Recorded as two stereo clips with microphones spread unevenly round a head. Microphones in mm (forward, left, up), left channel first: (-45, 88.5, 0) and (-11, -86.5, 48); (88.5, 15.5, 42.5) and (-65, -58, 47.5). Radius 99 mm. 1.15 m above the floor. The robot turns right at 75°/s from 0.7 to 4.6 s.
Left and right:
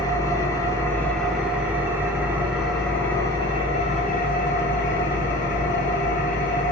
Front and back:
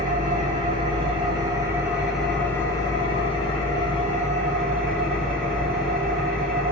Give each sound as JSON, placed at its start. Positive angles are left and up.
{"t": 0.0, "sound": "an engine running", "azimuth_deg": -175, "distance_m": 0.7}